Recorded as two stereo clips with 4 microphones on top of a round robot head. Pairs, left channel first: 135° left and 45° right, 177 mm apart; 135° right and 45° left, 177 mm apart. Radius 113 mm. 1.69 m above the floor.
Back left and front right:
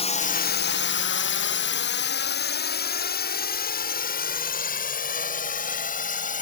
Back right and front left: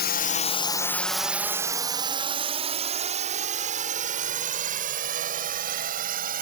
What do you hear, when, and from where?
0.0 s a drone: 165° right; by 6.4 s 90° left